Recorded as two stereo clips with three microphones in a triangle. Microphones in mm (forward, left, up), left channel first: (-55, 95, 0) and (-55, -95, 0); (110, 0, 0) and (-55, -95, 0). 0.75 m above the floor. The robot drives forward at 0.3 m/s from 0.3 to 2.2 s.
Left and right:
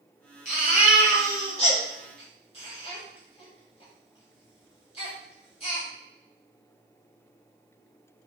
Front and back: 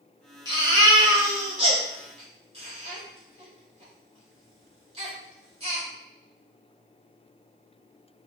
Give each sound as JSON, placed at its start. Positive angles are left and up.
{"t": 0.5, "sound": "a baby crying", "azimuth_deg": 145, "distance_m": 1.9}